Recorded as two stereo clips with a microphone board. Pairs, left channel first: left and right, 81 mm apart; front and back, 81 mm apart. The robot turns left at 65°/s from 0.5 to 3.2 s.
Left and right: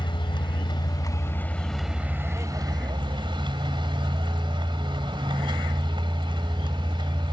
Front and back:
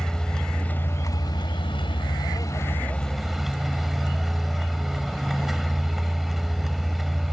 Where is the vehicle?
85° left; by 7.3 s 95° right.